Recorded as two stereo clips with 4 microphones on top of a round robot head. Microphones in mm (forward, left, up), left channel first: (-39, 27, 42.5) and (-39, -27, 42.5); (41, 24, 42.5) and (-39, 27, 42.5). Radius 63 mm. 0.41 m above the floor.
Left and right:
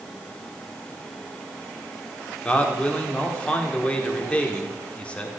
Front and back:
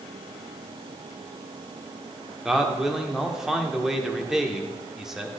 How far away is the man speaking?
About 1.3 m.